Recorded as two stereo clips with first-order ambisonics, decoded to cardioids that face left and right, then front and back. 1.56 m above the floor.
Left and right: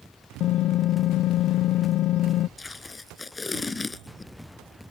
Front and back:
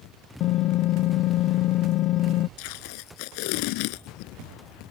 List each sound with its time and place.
0.4 s typing on a keyboard: 40° left
2.6 s tape being pulled: 10° left